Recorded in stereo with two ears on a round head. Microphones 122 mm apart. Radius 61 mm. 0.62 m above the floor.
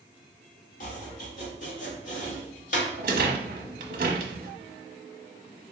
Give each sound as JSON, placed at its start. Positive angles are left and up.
{"t": 0.8, "sound": "chopping", "side_deg": 60, "distance_m": 1.7}
{"t": 3.0, "sound": "a rattle", "side_deg": -65, "distance_m": 0.9}